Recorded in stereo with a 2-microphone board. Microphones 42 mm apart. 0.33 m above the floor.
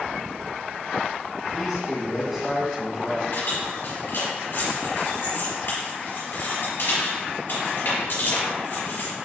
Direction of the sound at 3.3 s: 50° left (ahead or behind).